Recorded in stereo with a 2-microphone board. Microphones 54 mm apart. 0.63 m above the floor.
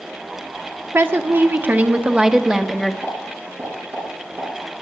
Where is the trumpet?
I don't hear a trumpet.